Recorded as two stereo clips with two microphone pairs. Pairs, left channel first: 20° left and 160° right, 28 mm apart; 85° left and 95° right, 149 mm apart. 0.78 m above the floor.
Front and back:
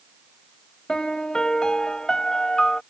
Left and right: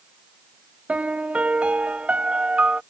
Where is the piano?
20° right.